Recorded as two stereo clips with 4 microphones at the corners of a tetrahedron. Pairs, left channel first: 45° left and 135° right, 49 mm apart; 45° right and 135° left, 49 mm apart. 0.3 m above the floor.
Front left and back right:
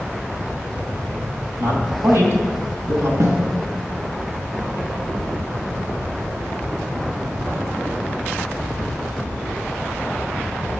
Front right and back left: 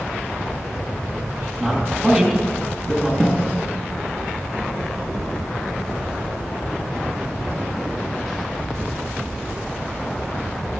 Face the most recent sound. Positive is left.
turn(degrees=-130)